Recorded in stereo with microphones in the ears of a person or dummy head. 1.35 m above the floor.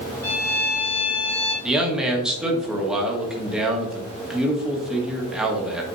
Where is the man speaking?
5° right (ahead or behind), 1.6 m.